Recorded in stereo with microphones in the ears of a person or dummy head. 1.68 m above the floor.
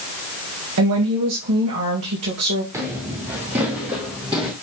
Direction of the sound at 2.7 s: 15° right (ahead or behind).